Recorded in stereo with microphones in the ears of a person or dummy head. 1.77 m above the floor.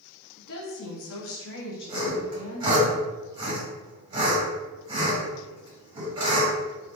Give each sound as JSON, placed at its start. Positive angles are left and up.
{"t": 0.4, "sound": "a woman speaking", "side_deg": 55, "distance_m": 1.0}
{"t": 1.9, "sound": "sawing", "side_deg": -25, "distance_m": 1.7}